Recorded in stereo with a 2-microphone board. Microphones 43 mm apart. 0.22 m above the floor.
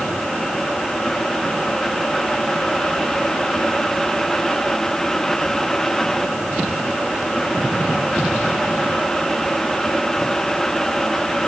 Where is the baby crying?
I don't hear a baby crying.